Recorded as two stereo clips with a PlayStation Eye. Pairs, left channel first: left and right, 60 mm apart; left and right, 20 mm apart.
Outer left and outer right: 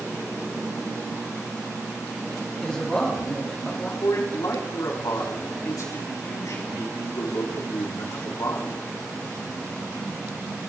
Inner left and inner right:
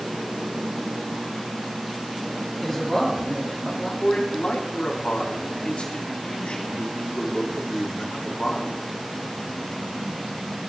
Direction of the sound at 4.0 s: 75° left (ahead or behind).